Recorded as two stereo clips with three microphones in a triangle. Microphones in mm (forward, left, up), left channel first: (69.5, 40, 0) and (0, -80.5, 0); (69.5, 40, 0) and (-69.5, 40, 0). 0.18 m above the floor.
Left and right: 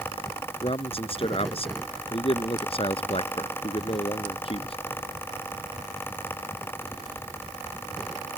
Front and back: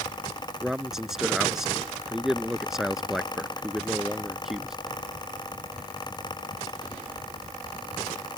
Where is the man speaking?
95° left.